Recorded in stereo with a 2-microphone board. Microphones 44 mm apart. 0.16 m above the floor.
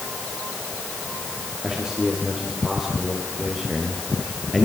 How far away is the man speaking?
About 6 m.